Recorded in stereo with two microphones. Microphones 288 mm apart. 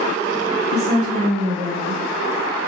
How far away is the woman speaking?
About 1.5 m.